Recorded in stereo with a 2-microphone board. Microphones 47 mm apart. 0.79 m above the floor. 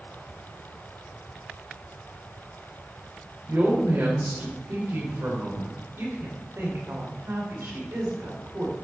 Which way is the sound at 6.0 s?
70° right (ahead or behind).